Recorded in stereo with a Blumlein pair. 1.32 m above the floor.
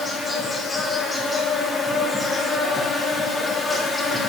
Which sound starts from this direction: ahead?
An insect, at 0.0 s.